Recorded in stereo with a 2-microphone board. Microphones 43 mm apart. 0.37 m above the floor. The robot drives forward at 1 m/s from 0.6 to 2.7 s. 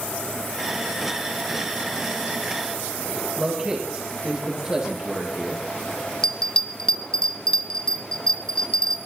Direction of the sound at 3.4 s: 15° right (ahead or behind).